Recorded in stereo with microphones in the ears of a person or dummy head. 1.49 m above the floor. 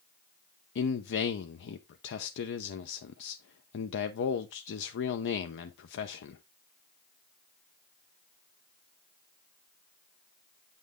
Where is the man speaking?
65° left (ahead or behind), 0.7 m.